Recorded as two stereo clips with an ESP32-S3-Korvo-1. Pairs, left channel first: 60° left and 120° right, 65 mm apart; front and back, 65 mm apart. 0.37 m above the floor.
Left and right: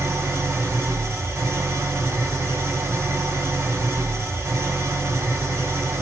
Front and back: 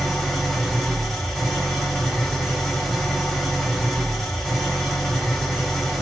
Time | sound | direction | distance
0.0 | an engine running | 80° right | 1.6 m